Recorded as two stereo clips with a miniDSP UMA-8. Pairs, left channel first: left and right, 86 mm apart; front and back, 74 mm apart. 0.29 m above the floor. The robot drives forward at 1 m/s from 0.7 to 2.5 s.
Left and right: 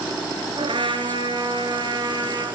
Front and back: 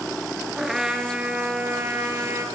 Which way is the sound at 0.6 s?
95° right.